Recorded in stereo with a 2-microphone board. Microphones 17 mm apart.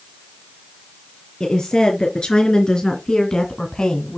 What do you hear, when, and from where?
1.4 s a woman speaking: 55° left (ahead or behind), 3.5 m; by 4.2 s 45° left (ahead or behind), 2.0 m